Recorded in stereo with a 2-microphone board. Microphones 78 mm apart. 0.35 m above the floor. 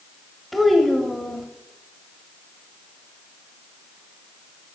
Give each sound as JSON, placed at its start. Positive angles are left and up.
{"t": 0.5, "sound": "a child speaking", "side_deg": 0, "distance_m": 1.1}